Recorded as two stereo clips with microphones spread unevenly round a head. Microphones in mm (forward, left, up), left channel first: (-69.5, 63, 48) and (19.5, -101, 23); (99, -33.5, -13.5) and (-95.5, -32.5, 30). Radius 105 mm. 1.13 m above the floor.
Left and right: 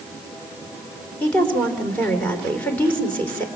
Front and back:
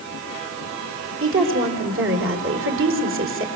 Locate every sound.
1.2 s a woman speaking: 160° right, 4 m